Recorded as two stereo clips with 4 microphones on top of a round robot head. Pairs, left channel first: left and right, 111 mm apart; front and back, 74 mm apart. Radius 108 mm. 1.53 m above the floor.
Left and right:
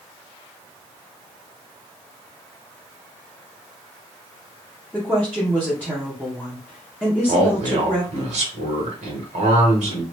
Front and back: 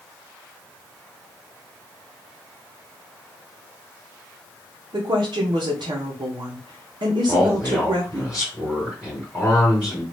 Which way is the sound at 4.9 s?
170° right.